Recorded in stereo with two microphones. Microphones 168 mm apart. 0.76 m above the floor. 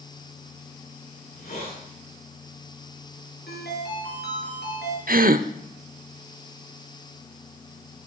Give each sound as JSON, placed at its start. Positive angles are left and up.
{"t": 1.2, "sound": "a hiss", "side_deg": 70, "distance_m": 9.5}
{"t": 3.5, "sound": "a ringtone", "side_deg": 80, "distance_m": 5.0}
{"t": 5.1, "sound": "a gasp", "side_deg": -60, "distance_m": 0.7}